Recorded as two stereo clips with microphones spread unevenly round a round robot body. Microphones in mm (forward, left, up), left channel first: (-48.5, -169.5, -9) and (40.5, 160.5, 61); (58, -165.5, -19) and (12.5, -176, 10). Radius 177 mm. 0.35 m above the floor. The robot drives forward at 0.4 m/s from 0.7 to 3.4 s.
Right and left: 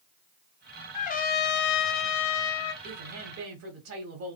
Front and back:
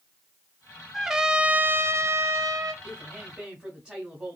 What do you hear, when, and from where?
0.9 s a trumpet: 50° right, 0.6 m; by 2.7 s 140° right, 0.7 m
2.8 s a woman speaking: 40° left, 1.1 m; by 4.4 s 60° left, 1.1 m